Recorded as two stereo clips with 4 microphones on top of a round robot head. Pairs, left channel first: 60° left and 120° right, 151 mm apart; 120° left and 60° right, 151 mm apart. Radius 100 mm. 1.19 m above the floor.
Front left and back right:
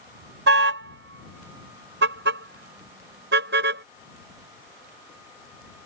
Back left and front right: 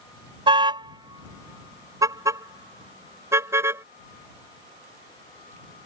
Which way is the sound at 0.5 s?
120° right.